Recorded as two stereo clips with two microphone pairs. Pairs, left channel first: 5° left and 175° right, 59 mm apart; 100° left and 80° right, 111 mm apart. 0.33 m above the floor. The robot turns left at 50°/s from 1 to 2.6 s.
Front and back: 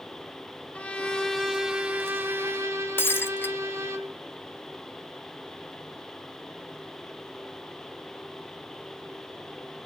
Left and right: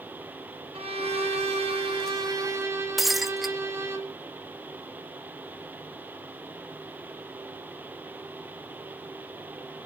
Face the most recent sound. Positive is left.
turn(degrees=10)